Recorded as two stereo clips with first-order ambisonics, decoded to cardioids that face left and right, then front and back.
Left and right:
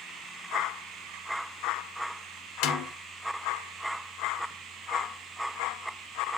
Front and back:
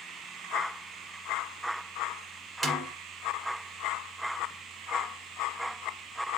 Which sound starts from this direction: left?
A snare drum, at 2.6 s.